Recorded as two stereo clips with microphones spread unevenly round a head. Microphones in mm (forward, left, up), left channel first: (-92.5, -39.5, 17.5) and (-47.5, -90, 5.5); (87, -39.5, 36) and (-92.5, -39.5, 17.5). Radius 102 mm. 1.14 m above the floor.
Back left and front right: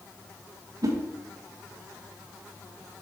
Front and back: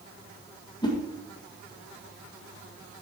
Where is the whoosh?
65° right, 1.7 m.